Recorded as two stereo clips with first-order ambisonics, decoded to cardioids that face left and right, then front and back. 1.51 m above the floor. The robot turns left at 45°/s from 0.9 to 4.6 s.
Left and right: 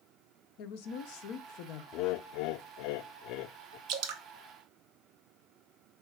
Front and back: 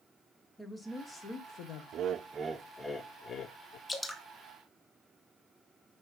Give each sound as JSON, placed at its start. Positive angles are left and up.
{"t": 0.6, "sound": "a woman speaking", "azimuth_deg": 85, "distance_m": 1.1}
{"t": 1.9, "sound": "laughter", "azimuth_deg": 125, "distance_m": 0.5}
{"t": 3.9, "sound": "dripping", "azimuth_deg": -75, "distance_m": 0.9}